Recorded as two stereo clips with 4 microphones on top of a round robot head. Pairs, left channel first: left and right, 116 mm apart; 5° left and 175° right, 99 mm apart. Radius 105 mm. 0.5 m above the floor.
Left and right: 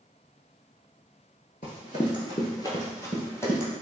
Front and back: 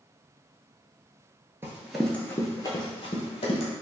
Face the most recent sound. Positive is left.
turn(degrees=20)